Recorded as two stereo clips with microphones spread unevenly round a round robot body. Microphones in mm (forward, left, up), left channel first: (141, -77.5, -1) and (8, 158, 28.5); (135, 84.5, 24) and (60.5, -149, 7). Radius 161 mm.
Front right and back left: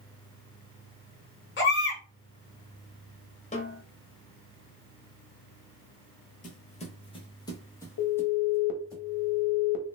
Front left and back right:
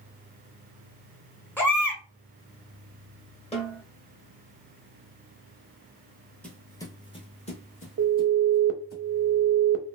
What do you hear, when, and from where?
1.6 s a baby crying: 10° right, 1.4 m
3.5 s a snare drum: 5° left, 1.5 m
6.4 s footsteps: 10° right, 1.0 m; by 9.0 s 30° left, 2.0 m
8.0 s an alarm: 80° right, 0.6 m